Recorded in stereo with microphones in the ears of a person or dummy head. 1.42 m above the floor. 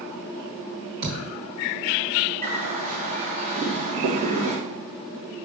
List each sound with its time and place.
1.0 s a thud: 60° right (ahead or behind), 2 m
2.4 s a bird: 45° right (ahead or behind), 1.7 m